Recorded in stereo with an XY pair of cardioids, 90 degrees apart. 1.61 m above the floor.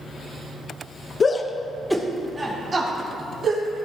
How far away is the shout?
About 0.9 m.